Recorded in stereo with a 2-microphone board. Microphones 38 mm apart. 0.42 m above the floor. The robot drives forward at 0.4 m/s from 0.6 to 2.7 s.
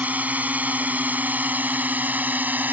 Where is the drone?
40° right (ahead or behind); by 2.7 s 45° right (ahead or behind).